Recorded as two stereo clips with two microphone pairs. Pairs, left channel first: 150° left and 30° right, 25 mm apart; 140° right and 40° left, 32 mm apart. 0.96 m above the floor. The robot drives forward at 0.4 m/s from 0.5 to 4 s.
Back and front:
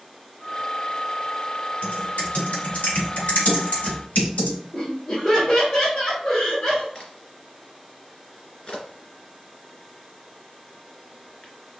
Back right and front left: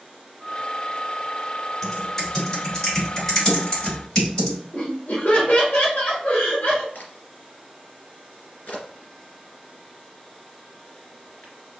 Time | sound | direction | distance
1.8 | typing on a keyboard | 150° left | 3 m
4.7 | laughter | 175° right | 1.6 m
7.0 | a crack | 160° right | 2 m